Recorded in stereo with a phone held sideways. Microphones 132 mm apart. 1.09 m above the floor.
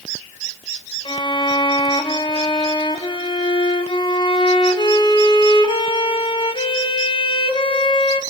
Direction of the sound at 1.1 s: 40° left (ahead or behind).